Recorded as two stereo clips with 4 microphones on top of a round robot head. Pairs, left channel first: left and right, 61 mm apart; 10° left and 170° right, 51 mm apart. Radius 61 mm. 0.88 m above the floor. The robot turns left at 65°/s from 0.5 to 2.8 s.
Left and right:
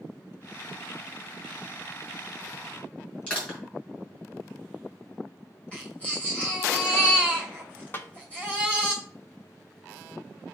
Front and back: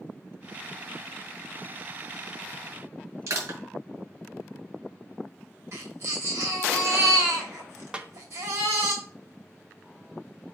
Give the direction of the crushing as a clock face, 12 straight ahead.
7 o'clock.